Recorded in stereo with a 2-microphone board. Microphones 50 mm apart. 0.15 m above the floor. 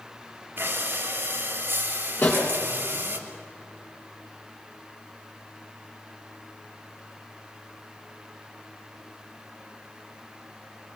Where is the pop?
35° left (ahead or behind), 4.5 m.